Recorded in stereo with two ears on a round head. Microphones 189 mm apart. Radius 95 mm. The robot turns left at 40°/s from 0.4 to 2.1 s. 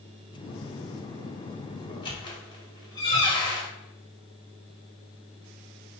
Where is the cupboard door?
I don't hear a cupboard door.